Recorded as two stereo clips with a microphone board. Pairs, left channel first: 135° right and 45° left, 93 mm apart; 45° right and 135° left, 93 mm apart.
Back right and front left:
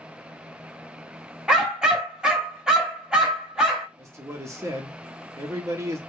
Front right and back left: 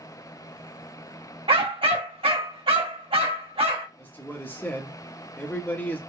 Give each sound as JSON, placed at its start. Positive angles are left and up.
{"t": 1.5, "sound": "a dog barking", "azimuth_deg": 125, "distance_m": 1.1}
{"t": 4.0, "sound": "a man speaking", "azimuth_deg": 15, "distance_m": 1.0}